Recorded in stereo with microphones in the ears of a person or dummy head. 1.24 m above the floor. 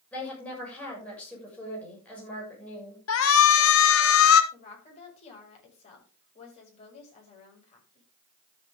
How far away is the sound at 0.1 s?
About 7 m.